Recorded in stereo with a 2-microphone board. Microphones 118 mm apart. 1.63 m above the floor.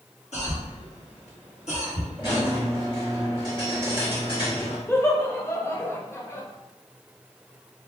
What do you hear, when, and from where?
0.3 s a cough: 75° left (ahead or behind), 1.3 m
2.2 s a squeak: 40° left (ahead or behind), 1.3 m
4.9 s laughter: 20° left (ahead or behind), 0.6 m